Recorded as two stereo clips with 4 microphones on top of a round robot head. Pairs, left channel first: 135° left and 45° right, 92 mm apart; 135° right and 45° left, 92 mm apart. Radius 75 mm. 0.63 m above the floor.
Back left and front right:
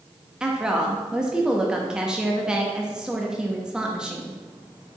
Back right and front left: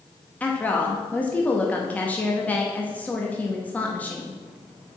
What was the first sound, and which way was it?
A woman speaking, 105° right.